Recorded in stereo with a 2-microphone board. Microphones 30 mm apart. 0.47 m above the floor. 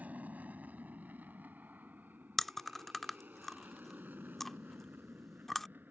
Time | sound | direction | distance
0.0 | an aircraft | 60° right (ahead or behind) | ?
2.4 | chewing | 5° left (ahead or behind) | ?